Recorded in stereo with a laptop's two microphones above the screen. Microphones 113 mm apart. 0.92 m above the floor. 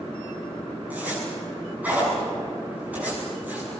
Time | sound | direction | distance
0.9 | a zipper | 15° right (ahead or behind) | 7.5 m